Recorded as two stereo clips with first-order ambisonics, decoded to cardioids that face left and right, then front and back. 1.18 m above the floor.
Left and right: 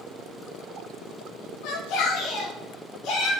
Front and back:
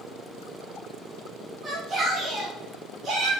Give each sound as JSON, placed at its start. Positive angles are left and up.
{"t": 1.6, "sound": "a shout", "azimuth_deg": 110, "distance_m": 1.4}